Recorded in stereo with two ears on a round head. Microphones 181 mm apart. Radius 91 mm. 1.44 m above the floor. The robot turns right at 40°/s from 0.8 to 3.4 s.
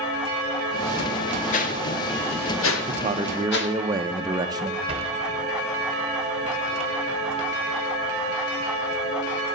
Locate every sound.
1.5 s a whoosh: 40° left (ahead or behind), 1.7 m; by 3.8 s 60° left (ahead or behind), 1.7 m
2.9 s a man speaking: 40° right (ahead or behind), 0.8 m; by 4.8 s 20° right (ahead or behind), 0.8 m
4.9 s a sliding door: 30° right (ahead or behind), 1.5 m